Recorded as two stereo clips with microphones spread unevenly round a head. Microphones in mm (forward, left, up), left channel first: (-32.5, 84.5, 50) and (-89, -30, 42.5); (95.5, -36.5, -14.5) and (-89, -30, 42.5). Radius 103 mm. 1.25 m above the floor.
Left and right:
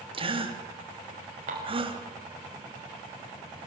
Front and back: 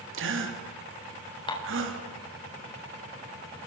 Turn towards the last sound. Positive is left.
turn(degrees=-65)